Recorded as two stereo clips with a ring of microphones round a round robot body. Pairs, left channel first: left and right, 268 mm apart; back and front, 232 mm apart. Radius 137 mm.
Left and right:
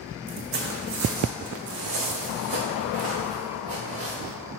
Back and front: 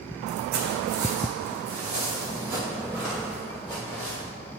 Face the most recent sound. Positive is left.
turn(degrees=-95)